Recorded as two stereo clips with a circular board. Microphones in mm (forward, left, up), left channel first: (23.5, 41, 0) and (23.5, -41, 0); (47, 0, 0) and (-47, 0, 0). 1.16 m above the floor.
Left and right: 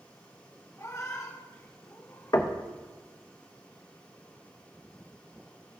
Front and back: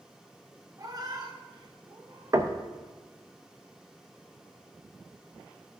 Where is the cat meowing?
135° left, 0.8 m; by 2.4 s 145° left, 2 m.